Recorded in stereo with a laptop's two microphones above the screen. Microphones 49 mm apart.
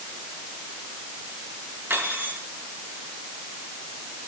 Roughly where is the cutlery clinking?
Right.